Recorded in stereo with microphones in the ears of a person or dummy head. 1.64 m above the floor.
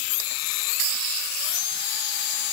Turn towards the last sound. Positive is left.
No sound to turn to.